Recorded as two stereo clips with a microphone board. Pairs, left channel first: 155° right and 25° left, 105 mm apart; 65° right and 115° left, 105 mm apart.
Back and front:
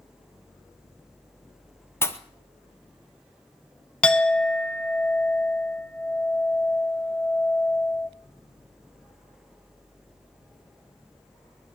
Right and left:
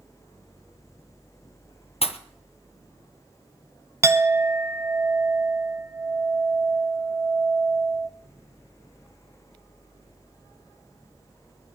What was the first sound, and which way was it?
A pop, 90° right.